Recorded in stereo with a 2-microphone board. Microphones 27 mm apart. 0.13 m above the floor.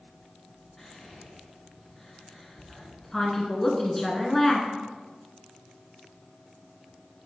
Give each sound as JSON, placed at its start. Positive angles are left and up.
{"t": 0.8, "sound": "whispering", "side_deg": 15, "distance_m": 1.3}
{"t": 3.1, "sound": "a woman speaking", "side_deg": 15, "distance_m": 1.3}